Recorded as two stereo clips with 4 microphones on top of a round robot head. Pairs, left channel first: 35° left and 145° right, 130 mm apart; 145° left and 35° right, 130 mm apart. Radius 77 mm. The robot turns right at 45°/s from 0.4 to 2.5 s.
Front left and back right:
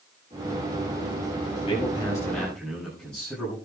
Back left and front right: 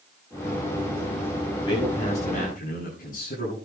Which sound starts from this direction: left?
A man speaking, at 1.6 s.